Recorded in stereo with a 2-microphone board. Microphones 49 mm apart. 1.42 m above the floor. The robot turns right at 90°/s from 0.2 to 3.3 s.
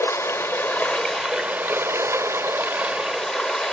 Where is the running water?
85° left, 2 m; by 3.7 s straight ahead, 2 m.